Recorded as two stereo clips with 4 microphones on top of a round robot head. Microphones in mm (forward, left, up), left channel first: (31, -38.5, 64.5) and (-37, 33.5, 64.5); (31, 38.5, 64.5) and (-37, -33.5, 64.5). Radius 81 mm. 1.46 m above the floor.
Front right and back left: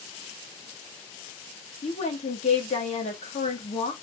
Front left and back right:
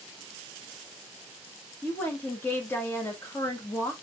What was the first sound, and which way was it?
A woman speaking, 25° right.